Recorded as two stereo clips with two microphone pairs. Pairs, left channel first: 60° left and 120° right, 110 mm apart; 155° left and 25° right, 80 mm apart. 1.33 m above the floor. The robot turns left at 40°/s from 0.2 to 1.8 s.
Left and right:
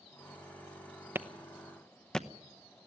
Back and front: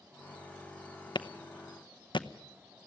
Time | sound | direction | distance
1.1 | a clap | 165° left | 0.8 m